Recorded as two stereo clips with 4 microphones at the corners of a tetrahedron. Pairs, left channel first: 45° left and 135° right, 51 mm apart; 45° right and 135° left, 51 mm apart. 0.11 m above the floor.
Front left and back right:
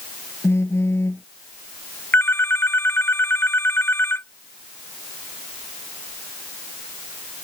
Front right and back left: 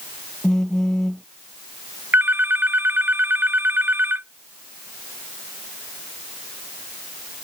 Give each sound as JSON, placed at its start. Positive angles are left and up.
{"t": 0.4, "sound": "a phone buzzing", "azimuth_deg": 35}
{"t": 2.1, "sound": "a phone ringing", "azimuth_deg": 85}